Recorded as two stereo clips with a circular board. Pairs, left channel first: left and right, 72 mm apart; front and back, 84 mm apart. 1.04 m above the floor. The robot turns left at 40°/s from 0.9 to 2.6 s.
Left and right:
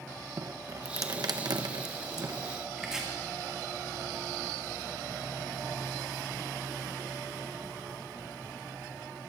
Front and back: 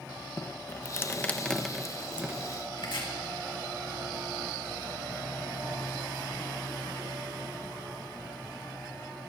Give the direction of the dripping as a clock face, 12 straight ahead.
2 o'clock.